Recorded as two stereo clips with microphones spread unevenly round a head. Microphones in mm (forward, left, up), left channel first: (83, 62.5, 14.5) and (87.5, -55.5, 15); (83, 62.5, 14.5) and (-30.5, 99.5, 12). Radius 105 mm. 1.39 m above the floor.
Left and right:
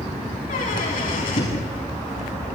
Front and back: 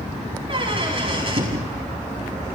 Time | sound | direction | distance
0.5 | a squeak | 120° left | 6.5 m